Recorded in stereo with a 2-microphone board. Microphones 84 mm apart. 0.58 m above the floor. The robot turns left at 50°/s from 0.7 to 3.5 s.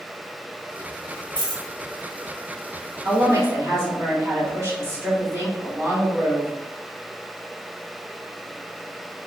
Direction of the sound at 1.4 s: 65° left (ahead or behind).